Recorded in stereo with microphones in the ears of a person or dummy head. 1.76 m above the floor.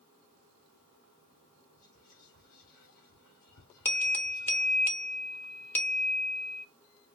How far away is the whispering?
About 1.5 m.